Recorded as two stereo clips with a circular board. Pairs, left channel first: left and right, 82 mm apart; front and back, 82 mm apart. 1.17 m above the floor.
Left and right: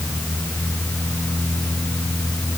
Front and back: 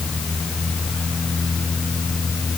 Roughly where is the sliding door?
I don't hear a sliding door.